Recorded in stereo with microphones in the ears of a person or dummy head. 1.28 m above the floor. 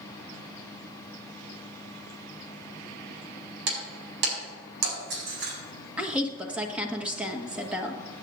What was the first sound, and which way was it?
Breaking glass, 65° right (ahead or behind).